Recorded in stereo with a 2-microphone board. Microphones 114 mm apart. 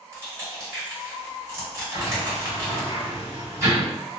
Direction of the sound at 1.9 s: 25° right (ahead or behind).